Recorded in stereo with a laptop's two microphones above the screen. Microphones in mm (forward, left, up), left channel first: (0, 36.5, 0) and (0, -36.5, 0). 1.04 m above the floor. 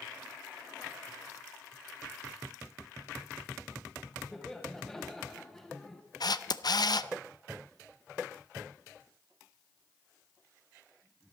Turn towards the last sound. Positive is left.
turn(degrees=65)  # may be behind; listen again after turning